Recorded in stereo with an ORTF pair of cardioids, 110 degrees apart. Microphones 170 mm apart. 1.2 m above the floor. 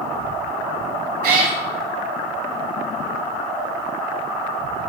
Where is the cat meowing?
65° right, 1.4 m.